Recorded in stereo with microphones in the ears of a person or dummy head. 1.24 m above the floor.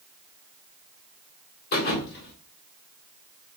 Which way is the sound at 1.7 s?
55° left (ahead or behind).